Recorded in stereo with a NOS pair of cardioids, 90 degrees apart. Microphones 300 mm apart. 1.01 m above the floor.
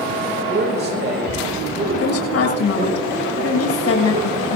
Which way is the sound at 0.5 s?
35° right.